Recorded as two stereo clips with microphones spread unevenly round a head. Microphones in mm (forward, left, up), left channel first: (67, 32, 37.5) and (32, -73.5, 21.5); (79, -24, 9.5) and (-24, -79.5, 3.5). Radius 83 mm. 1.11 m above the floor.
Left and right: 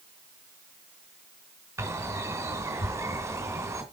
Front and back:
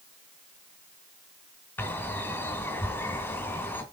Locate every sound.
1.8 s a bird: 45° right, 2 m